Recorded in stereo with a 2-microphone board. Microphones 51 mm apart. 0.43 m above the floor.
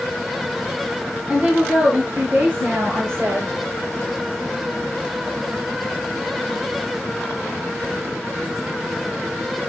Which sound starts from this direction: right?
A woman speaking, at 1.3 s.